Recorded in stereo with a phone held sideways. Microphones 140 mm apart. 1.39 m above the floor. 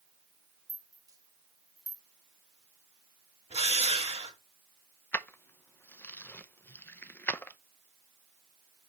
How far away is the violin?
I don't hear a violin.